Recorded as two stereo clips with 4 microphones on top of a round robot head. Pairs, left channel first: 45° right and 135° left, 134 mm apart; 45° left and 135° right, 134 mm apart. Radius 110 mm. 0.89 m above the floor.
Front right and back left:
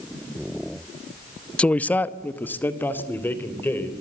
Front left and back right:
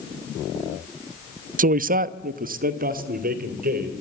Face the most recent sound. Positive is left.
turn(degrees=-120)